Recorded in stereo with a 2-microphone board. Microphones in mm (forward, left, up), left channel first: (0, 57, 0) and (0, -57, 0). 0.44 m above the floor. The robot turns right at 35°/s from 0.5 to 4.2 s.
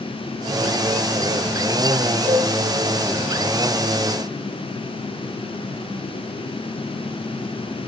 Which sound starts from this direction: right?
A cowbell, at 2.2 s.